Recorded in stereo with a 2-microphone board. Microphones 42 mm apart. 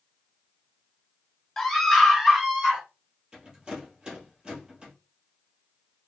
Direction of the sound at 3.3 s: 20° right (ahead or behind).